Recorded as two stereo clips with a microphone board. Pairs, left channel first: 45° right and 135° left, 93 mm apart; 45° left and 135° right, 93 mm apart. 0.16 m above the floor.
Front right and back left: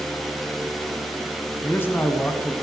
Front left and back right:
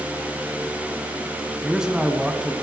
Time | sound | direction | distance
1.6 | a man speaking | 60° right | 1.4 m